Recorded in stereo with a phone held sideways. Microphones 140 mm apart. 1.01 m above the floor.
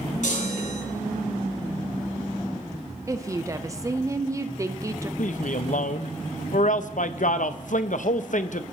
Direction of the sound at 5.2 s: 65° left (ahead or behind).